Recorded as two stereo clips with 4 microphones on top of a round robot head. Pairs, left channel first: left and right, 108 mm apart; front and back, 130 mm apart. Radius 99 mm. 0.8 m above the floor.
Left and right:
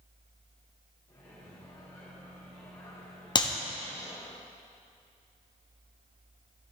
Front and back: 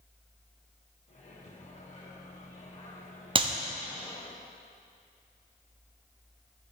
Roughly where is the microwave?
Ahead left.